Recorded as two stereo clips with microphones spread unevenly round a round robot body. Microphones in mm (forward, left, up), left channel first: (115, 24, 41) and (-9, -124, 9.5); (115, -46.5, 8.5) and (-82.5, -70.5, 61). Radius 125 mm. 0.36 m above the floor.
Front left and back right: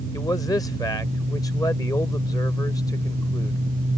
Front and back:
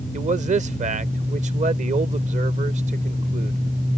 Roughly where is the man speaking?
Behind left.